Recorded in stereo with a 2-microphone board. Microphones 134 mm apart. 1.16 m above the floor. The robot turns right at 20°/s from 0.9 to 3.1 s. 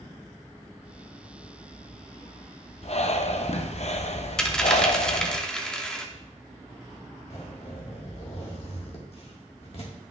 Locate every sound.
2.8 s breathing: 50° left (ahead or behind), 0.6 m; by 5.4 s 55° left (ahead or behind), 0.6 m
4.4 s a dropped coin: 5° left (ahead or behind), 0.7 m
7.3 s a zipper: 50° left (ahead or behind), 1.6 m